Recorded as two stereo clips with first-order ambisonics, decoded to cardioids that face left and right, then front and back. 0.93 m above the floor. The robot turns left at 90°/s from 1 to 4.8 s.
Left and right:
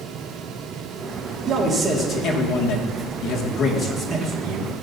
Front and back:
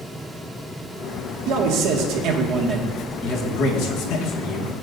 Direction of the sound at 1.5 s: 145° right.